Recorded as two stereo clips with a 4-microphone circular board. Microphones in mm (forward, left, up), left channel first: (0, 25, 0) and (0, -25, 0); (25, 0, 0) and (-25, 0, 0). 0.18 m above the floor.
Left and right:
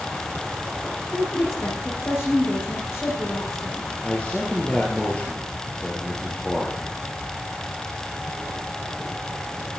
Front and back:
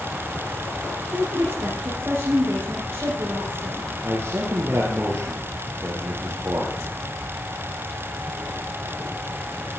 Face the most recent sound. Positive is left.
turn(degrees=155)